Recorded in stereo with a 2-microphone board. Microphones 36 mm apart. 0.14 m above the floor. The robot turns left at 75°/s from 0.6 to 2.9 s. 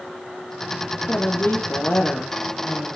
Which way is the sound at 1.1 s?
135° left.